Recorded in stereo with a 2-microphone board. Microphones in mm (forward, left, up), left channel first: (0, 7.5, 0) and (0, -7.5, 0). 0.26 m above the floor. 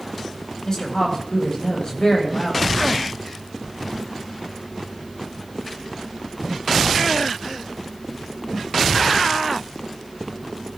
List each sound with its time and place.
0.7 s a woman speaking: 40° left (ahead or behind), 7 m